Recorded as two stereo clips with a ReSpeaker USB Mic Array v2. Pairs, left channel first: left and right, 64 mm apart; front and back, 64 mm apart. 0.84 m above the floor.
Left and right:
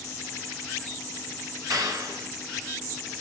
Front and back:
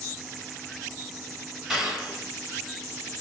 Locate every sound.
1.7 s a clap: 95° right, 3 m